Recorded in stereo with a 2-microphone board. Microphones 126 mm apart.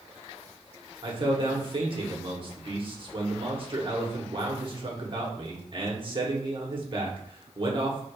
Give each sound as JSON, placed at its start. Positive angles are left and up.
{"t": 1.0, "sound": "a man speaking", "side_deg": -40, "distance_m": 1.2}